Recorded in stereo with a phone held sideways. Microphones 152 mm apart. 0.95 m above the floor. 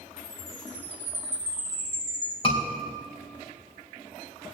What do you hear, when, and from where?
0.2 s a chime: 15° right (ahead or behind), 3 m
2.4 s a scream: 35° left (ahead or behind), 3.5 m